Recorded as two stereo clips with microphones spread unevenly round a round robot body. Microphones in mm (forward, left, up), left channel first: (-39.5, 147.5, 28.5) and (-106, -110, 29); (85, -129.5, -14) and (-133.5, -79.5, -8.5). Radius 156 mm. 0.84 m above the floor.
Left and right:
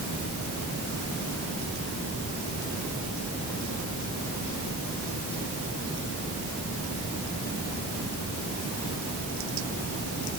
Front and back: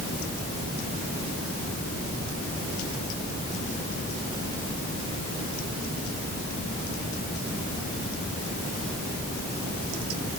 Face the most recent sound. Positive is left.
No sound to turn to.